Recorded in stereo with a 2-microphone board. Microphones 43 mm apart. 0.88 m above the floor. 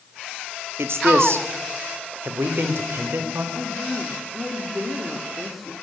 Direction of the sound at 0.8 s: 75° right (ahead or behind).